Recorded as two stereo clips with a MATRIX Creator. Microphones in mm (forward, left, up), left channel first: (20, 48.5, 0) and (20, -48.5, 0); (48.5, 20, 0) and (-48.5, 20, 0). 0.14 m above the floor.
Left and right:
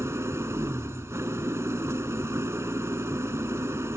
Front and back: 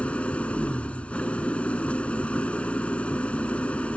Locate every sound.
0.0 s an engine running: 65° right, 0.7 m